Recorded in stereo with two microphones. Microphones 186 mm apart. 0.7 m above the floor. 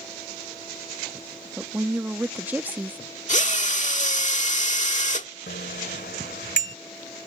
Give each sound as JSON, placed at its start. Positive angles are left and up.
{"t": 1.6, "sound": "a woman speaking", "side_deg": -10}
{"t": 3.3, "sound": "a drill", "side_deg": 45}
{"t": 5.5, "sound": "a bicycle bell", "side_deg": 75}